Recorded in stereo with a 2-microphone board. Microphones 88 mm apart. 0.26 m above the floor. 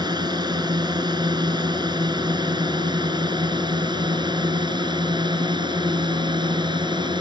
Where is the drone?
55° right (ahead or behind); by 7.2 s 60° right (ahead or behind).